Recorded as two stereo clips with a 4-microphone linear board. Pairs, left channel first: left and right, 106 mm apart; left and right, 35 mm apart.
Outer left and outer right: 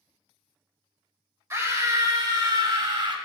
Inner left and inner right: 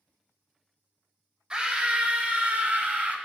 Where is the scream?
30° right (ahead or behind), 1.7 m; by 3.1 s 55° right (ahead or behind), 2.5 m.